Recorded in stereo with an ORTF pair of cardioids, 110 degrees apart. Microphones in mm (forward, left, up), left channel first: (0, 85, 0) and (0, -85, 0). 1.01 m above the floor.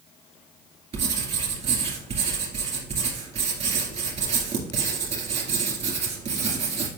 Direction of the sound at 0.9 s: 45° right.